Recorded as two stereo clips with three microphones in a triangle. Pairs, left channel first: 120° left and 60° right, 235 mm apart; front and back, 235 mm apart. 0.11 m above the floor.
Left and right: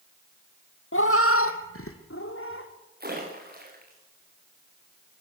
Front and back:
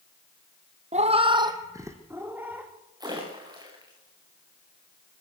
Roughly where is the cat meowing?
Behind left.